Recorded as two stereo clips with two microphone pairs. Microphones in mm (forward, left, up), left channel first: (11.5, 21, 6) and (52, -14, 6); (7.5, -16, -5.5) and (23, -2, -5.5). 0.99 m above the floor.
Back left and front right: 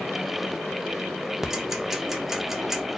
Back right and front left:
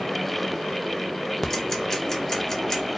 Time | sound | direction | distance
1.4 | ticking | 110° right | 0.8 m